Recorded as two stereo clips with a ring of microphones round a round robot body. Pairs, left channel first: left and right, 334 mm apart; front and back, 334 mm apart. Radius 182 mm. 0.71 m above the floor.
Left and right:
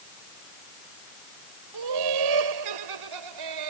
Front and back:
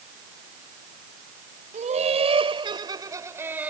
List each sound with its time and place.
1.7 s laughter: 110° right; by 3.7 s 95° right